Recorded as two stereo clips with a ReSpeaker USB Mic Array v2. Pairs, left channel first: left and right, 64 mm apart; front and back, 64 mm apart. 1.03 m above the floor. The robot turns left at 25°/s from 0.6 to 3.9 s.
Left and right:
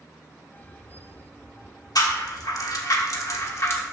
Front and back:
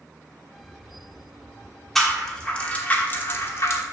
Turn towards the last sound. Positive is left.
turn(degrees=40)